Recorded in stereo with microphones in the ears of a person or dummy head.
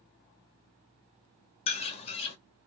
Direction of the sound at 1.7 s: 30° left (ahead or behind).